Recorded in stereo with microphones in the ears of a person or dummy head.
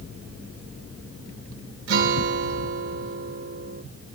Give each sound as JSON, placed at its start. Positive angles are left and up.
{"t": 1.9, "sound": "a guitar", "side_deg": -60, "distance_m": 1.2}